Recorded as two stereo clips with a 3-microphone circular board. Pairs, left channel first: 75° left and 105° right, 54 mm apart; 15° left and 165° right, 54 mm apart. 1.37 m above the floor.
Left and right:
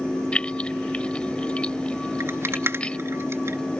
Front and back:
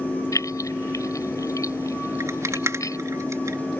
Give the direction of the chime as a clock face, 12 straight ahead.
No chime in this recording.